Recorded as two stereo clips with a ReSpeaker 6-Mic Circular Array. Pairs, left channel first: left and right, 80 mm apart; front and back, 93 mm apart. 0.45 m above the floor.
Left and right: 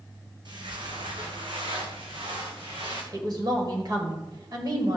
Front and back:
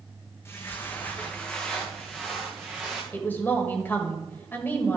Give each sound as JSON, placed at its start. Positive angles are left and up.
{"t": 0.5, "sound": "footsteps", "azimuth_deg": -60, "distance_m": 1.5}
{"t": 3.1, "sound": "a woman speaking", "azimuth_deg": -65, "distance_m": 2.0}